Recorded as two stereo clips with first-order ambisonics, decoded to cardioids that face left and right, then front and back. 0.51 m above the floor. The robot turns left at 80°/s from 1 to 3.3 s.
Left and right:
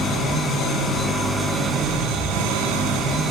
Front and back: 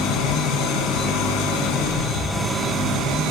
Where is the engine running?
25° left, 2.5 m; by 3.3 s 155° right, 2.5 m.